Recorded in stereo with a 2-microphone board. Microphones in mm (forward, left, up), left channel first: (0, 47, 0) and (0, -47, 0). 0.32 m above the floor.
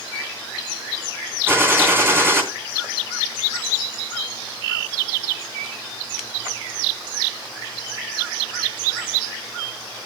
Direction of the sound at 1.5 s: 25° right (ahead or behind).